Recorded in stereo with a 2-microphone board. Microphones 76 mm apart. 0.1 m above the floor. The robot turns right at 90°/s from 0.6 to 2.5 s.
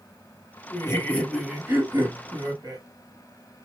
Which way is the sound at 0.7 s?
120° left.